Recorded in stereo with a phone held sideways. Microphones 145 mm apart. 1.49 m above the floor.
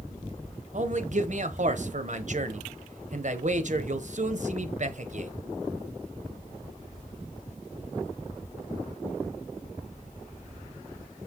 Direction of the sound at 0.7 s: 60° right (ahead or behind).